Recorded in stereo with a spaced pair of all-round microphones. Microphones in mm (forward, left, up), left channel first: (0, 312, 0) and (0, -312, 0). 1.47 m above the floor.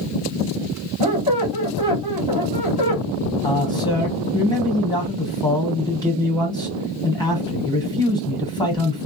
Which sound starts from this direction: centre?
A man speaking, at 3.4 s.